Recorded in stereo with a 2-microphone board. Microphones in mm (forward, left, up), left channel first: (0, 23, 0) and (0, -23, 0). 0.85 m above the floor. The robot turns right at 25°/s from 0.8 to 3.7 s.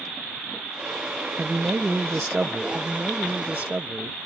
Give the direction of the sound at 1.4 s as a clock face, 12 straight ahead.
2 o'clock.